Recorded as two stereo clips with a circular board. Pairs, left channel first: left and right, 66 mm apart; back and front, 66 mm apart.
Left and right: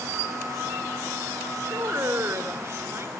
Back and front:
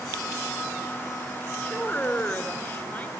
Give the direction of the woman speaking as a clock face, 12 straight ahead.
4 o'clock.